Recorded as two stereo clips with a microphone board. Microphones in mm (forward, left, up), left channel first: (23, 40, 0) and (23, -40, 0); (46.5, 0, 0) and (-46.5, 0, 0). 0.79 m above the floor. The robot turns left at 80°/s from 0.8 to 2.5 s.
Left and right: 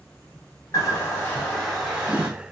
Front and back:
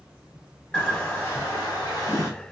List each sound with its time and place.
0.7 s a bird: 75° left, 1.1 m; by 2.3 s 45° right, 1.1 m